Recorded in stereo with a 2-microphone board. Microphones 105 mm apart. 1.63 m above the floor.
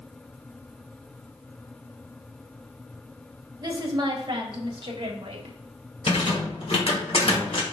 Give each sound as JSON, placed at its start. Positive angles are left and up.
{"t": 3.6, "sound": "a woman speaking", "side_deg": -35, "distance_m": 1.5}
{"t": 6.1, "sound": "a rattle", "side_deg": 65, "distance_m": 1.4}